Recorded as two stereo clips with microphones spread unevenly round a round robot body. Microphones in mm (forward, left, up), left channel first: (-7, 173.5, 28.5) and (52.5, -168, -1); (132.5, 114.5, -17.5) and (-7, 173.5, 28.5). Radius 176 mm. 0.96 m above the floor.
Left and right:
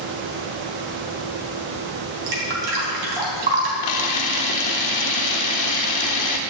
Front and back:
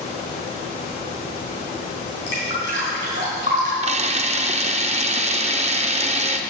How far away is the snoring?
No snoring in this recording.